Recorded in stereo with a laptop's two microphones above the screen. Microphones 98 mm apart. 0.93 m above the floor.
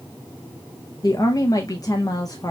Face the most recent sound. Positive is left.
turn(degrees=40)  # may be behind; listen again after turning